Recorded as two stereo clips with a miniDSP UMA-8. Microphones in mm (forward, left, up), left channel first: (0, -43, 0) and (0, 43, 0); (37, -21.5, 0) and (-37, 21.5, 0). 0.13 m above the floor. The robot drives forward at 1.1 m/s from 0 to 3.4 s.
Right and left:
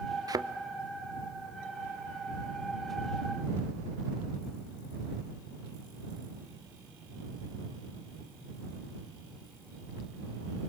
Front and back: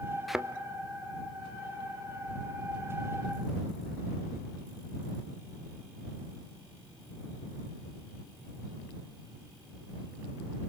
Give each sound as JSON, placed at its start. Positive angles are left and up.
{"t": 0.3, "sound": "a thud", "azimuth_deg": 60, "distance_m": 0.7}